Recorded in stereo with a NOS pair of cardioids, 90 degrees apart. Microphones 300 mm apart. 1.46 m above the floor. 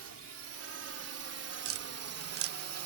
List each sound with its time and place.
0.0 s a drone: 50° right; by 2.9 s 65° right
1.6 s tapping: 50° right